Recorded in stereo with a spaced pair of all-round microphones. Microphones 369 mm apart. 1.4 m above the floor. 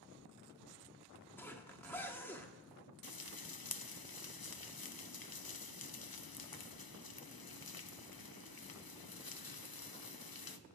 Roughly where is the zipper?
Centre.